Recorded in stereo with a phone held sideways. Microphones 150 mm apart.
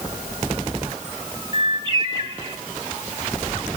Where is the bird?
30° right (ahead or behind), 1.9 m.